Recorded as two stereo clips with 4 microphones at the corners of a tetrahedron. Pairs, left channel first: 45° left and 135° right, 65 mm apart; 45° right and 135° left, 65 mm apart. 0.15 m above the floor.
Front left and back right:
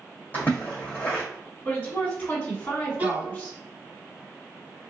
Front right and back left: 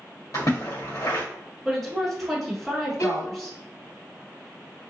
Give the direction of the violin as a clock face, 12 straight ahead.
2 o'clock.